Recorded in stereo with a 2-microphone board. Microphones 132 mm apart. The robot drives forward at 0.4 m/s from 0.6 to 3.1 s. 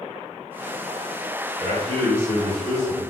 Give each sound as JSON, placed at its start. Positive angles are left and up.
{"t": 1.6, "sound": "a man speaking", "side_deg": -25, "distance_m": 1.8}